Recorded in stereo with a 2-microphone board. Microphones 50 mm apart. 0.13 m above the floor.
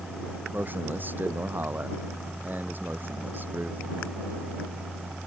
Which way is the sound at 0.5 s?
35° right (ahead or behind).